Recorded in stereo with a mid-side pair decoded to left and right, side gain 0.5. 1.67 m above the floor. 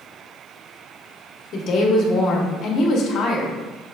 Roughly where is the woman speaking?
Ahead left.